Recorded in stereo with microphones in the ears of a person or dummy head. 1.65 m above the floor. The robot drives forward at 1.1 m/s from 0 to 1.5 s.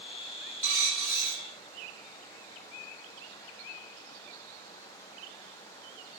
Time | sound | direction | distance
0.6 | a dropped coin | 10° left (ahead or behind) | 1.9 m